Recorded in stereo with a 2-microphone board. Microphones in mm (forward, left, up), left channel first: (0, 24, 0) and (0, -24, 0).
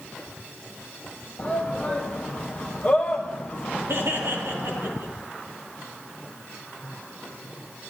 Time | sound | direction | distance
1.4 | a shout | 30° left (ahead or behind) | 3.5 m
3.9 | laughter | 65° right (ahead or behind) | 4 m